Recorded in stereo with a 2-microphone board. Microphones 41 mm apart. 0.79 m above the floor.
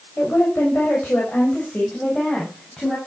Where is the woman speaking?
65° left (ahead or behind), 4 m; by 3.0 s 20° left (ahead or behind), 5.5 m.